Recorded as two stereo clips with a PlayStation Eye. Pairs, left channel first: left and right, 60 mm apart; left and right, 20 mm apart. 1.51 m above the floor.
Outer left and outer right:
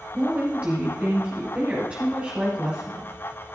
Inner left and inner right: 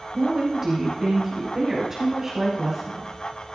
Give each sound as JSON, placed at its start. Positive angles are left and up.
{"t": 0.1, "sound": "a woman speaking", "side_deg": -20, "distance_m": 8.0}